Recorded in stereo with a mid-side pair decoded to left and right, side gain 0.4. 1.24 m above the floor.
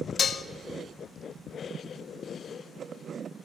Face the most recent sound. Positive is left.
turn(degrees=50)